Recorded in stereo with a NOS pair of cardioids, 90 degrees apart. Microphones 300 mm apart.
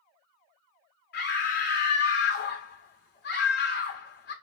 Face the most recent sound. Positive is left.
turn(degrees=35)